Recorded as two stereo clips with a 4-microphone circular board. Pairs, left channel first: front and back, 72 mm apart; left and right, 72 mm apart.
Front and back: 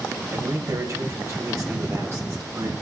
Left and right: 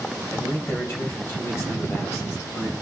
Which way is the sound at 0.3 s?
140° left.